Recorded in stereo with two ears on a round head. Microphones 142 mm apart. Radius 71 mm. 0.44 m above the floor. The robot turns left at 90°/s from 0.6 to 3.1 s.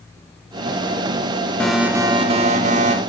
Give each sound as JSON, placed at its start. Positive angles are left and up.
{"t": 1.6, "sound": "an alarm", "azimuth_deg": 10, "distance_m": 1.5}